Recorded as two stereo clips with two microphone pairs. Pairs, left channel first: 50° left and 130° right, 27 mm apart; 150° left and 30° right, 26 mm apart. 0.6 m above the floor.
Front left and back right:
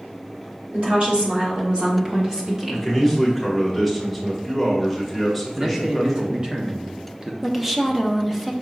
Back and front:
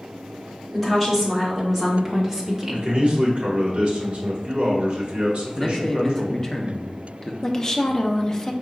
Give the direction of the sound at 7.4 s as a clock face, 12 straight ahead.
6 o'clock.